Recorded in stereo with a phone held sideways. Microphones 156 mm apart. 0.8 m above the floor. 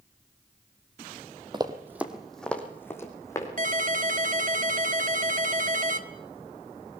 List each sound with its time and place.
1.5 s running footsteps: 30° right (ahead or behind), 1.5 m; by 3.5 s 20° left (ahead or behind), 3.5 m
3.6 s a ringtone: 60° right (ahead or behind), 1.3 m